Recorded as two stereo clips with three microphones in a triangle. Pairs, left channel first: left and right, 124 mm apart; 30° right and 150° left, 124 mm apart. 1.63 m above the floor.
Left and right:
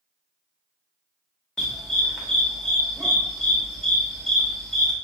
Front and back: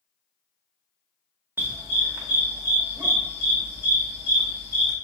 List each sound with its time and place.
1.6 s a dog barking: 165° left, 1.1 m